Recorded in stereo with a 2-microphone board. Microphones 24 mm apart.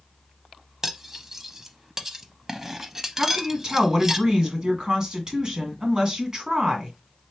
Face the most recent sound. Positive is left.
turn(degrees=-35)  # may be behind; listen again after turning